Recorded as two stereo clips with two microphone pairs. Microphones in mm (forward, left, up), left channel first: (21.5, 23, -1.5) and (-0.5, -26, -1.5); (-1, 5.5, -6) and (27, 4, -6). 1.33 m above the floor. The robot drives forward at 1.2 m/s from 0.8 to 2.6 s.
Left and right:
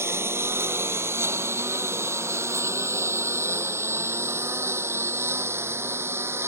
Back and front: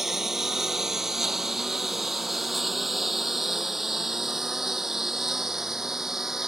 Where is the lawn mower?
80° right; by 6.5 s 75° right.